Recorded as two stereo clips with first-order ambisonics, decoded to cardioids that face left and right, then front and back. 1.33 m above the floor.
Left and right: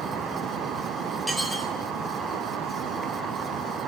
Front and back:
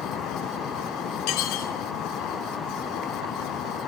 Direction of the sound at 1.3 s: Straight ahead.